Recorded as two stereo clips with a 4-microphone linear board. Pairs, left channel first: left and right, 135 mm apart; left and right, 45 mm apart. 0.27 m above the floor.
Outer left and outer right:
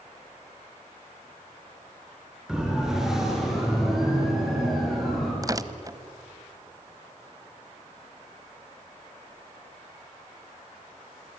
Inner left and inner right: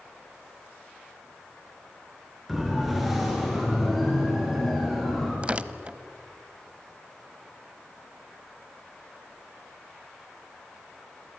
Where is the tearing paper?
25° right (ahead or behind), 0.9 m.